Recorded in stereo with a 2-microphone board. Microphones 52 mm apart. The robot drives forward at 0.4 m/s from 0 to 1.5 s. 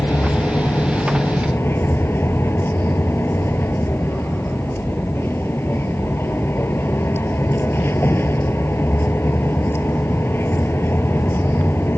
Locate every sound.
0.0 s a vehicle: 50° left (ahead or behind); by 12.0 s 45° left (ahead or behind)